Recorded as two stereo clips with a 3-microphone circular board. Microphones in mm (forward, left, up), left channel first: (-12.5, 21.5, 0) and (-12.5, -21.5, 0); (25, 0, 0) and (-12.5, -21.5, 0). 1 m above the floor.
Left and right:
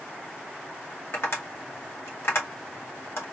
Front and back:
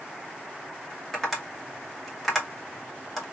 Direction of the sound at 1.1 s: 120° left.